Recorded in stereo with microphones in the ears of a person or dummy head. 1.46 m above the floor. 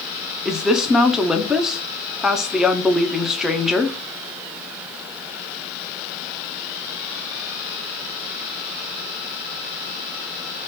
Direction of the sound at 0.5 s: Centre (ahead or behind).